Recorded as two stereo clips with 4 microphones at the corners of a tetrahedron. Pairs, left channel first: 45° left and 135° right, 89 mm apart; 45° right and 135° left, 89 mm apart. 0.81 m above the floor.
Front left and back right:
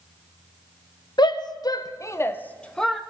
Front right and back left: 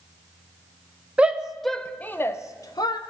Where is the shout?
60° left, 0.8 m; by 3.0 s 45° right, 0.8 m.